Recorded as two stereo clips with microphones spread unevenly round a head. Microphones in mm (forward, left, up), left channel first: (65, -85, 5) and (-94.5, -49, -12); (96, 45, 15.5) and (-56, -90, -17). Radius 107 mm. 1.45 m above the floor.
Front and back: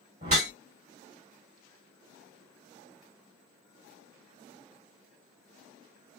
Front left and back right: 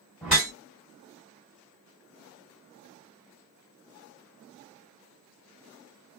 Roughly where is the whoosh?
Behind left.